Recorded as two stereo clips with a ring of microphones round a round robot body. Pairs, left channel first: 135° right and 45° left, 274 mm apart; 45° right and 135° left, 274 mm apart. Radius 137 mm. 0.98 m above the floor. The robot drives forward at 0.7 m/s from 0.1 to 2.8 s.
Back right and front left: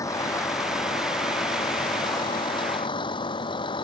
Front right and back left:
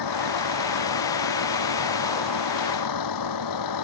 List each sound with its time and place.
0.0 s a vehicle: 55° right; by 3.9 s 60° right